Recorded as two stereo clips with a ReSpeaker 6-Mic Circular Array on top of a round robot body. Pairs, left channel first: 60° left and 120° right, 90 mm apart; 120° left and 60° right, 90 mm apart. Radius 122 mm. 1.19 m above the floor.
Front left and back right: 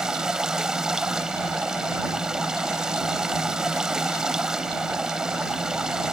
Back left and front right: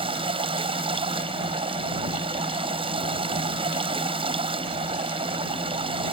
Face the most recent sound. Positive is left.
turn(degrees=-35)